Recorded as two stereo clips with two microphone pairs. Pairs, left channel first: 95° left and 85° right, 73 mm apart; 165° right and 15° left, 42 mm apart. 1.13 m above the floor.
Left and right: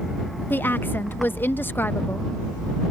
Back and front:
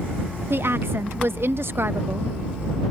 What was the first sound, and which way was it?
A woman speaking, 40° left.